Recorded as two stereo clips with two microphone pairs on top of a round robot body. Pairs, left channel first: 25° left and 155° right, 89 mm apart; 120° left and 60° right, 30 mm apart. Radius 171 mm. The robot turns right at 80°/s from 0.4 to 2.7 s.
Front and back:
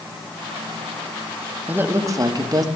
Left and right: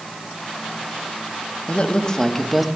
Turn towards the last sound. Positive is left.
turn(degrees=-140)